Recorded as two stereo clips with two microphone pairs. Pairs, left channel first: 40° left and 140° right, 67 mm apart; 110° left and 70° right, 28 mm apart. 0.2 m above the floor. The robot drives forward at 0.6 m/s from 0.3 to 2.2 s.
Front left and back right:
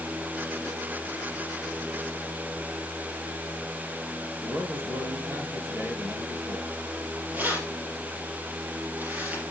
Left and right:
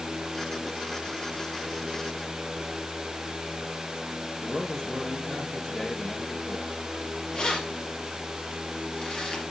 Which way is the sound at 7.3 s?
160° left.